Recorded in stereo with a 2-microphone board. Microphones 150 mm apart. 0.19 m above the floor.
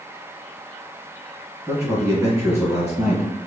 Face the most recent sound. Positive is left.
turn(degrees=-20)  # may be behind; listen again after turning